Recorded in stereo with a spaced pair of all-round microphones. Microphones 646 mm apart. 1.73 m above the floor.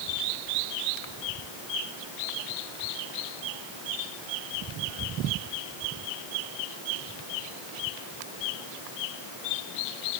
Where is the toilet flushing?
I don't hear a toilet flushing.